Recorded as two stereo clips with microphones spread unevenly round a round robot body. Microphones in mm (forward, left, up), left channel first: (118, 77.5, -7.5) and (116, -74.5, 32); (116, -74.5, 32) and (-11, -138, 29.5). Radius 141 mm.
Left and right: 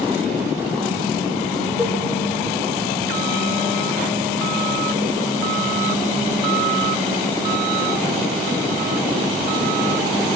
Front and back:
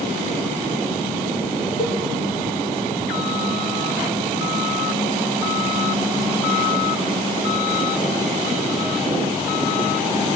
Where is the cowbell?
5° right, 6.5 m.